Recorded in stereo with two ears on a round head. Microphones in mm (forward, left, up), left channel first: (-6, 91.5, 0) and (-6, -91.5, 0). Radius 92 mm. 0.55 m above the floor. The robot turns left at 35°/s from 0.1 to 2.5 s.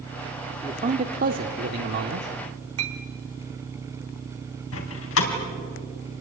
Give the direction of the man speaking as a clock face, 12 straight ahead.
1 o'clock.